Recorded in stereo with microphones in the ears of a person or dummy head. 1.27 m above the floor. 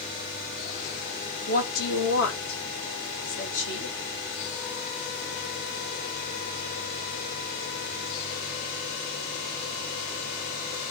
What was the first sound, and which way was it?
A woman speaking, 45° left (ahead or behind).